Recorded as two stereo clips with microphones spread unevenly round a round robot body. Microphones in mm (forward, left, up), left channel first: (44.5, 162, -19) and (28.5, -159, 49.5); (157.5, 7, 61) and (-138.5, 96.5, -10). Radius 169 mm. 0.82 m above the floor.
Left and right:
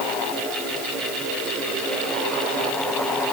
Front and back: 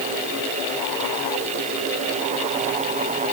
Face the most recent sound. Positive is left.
No sound to turn to.